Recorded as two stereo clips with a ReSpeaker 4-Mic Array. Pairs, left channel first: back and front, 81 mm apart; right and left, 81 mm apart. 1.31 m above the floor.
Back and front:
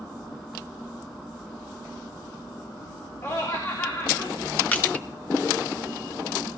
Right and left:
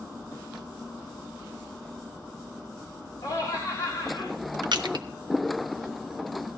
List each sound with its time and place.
3.2 s laughter: 125° right, 3.5 m
4.7 s crushing: 110° left, 1.2 m